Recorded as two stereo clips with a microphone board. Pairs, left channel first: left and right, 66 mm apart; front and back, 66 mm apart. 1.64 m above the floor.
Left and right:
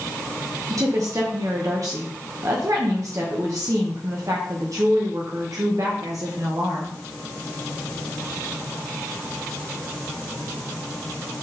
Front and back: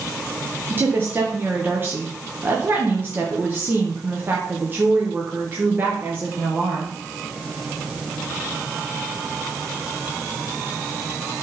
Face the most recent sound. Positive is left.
turn(degrees=-125)